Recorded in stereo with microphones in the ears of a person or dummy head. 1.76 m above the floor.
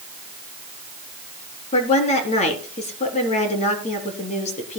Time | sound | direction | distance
1.7 | a woman speaking | 45° left (ahead or behind) | 3 m